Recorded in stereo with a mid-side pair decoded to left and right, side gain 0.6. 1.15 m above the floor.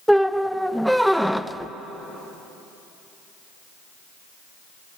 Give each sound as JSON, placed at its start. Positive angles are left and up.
{"t": 0.1, "sound": "a squeak", "azimuth_deg": 0, "distance_m": 0.5}